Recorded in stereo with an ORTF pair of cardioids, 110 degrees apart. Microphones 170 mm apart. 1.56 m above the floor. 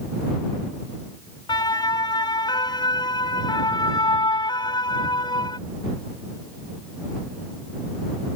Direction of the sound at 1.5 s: 25° left.